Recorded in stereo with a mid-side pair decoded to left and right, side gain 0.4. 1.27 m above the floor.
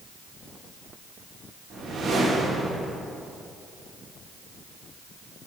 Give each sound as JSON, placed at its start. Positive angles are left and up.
{"t": 1.7, "sound": "a whoosh", "azimuth_deg": -60, "distance_m": 1.9}